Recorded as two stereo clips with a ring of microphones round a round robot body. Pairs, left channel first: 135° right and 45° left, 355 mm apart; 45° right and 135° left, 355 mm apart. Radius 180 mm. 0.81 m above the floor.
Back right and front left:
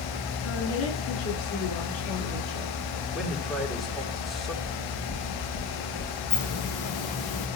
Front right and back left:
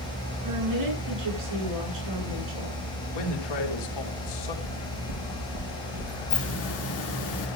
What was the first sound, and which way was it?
A woman speaking, 170° left.